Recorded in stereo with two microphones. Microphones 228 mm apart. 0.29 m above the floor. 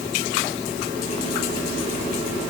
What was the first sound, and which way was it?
Only background noise.